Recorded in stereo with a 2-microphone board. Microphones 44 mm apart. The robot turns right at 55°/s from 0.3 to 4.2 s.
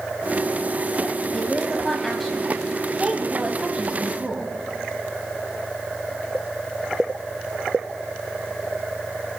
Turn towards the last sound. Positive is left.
turn(degrees=-25)  # may be behind; listen again after turning